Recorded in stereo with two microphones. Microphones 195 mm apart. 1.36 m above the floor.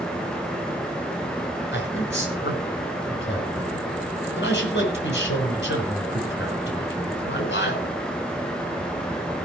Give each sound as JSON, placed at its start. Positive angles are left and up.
{"t": 1.7, "sound": "a man speaking", "side_deg": 75, "distance_m": 6.0}